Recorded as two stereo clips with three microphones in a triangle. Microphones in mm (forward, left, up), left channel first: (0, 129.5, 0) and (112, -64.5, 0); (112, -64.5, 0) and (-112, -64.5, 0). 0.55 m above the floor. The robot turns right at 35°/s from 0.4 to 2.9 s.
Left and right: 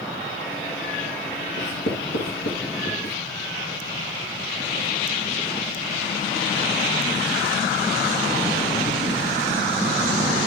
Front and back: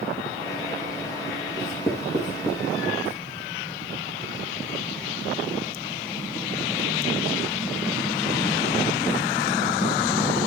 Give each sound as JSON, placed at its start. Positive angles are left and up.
{"t": 1.6, "sound": "writing", "azimuth_deg": 100, "distance_m": 3.5}